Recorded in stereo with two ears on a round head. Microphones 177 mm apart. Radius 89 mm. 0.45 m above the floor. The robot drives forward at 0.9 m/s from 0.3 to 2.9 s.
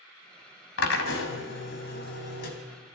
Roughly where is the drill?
Left.